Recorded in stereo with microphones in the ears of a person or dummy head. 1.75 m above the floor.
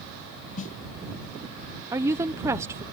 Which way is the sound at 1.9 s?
15° right (ahead or behind).